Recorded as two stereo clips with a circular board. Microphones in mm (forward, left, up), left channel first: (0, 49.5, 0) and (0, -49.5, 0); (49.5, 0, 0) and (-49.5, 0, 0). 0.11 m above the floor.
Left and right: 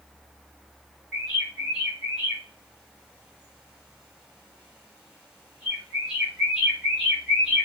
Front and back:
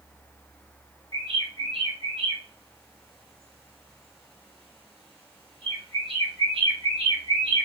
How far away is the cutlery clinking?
No cutlery clinking in this recording.